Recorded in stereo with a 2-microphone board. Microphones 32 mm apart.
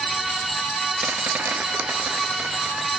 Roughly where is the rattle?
Right.